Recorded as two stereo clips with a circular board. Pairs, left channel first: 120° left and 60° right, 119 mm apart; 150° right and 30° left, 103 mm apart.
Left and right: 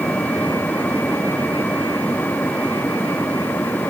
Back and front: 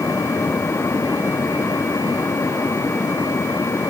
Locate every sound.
Only background noise.